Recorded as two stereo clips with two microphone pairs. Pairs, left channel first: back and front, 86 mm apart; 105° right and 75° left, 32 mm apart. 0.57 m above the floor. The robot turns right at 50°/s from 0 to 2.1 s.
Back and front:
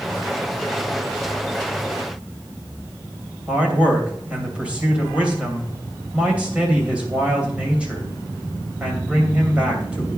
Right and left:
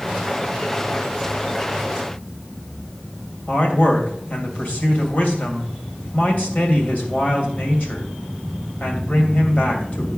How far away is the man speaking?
About 2.5 m.